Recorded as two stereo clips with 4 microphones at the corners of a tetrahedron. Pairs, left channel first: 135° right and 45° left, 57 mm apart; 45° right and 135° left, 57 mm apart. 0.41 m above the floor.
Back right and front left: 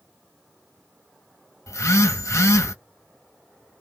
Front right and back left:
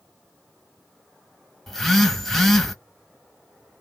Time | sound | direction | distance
1.7 | a phone buzzing | 130° right | 1.1 m